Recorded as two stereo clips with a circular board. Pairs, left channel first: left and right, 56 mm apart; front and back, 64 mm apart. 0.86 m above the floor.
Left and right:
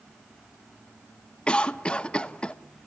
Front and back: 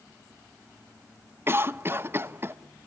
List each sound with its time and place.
1.5 s a cough: 155° left, 1.0 m